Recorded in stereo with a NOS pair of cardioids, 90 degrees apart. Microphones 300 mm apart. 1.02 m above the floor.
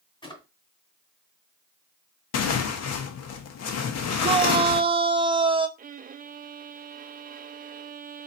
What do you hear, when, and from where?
0.2 s a drawer: 15° left, 2.5 m
2.3 s tearing paper: 55° left, 0.9 m
4.2 s a shout: 15° right, 1.0 m
5.8 s a violin: 30° right, 0.5 m